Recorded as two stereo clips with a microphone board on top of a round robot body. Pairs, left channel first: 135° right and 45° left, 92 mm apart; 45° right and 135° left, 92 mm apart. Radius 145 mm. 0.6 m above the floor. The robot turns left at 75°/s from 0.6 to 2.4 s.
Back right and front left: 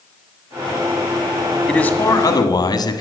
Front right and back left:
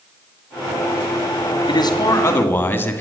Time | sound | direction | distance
1.7 | a man speaking | 55° right | 1.9 m